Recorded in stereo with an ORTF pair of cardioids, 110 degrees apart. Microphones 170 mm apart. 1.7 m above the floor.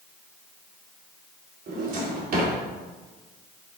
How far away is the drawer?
About 3.5 m.